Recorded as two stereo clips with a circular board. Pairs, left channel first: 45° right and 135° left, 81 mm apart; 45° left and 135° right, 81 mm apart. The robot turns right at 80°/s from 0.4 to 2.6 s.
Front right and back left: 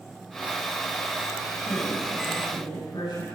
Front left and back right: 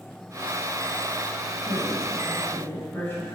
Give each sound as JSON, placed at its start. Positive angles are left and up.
{"t": 1.6, "sound": "a woman speaking", "azimuth_deg": -100, "distance_m": 6.5}